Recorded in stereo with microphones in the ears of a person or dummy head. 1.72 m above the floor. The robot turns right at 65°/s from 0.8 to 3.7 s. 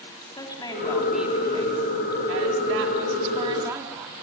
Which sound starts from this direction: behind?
A woman speaking, at 0.4 s.